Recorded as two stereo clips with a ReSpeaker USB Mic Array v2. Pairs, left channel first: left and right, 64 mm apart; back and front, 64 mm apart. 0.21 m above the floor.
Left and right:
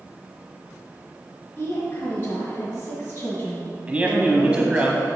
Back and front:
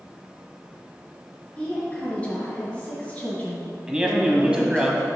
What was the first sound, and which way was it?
A woman speaking, 125° left.